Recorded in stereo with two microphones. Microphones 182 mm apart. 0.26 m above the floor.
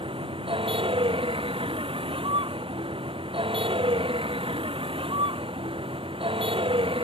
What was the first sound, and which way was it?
A vehicle, 30° right (ahead or behind).